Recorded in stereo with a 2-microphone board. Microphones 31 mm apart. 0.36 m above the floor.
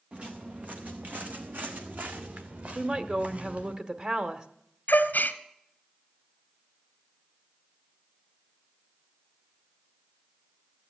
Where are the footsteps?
40° right (ahead or behind), 1.9 m; by 3.8 s 45° right (ahead or behind), 3 m.